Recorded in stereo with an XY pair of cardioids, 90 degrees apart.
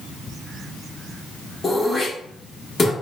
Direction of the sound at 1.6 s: 45° left.